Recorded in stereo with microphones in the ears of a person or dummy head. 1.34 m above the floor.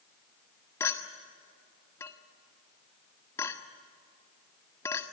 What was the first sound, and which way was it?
A clink, 15° left (ahead or behind).